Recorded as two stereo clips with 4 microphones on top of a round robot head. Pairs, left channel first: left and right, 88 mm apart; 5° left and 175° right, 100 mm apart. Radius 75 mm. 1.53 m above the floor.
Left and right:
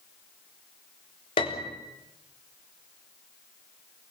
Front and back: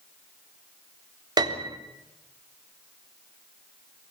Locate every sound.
1.4 s a piano: 140° left, 3.5 m